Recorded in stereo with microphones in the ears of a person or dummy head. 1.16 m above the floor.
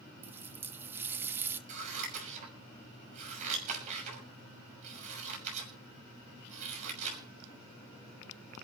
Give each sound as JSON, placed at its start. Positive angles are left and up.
{"t": 0.2, "sound": "a running tap", "side_deg": -15, "distance_m": 1.1}
{"t": 1.7, "sound": "scissors", "side_deg": -45, "distance_m": 6.0}